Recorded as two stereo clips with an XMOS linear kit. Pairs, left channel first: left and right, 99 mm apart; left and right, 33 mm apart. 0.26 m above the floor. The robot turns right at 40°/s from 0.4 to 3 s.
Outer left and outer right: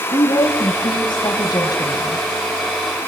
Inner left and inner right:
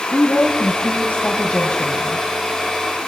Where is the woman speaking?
70° left, 2 m; by 2.2 s 145° left, 2 m.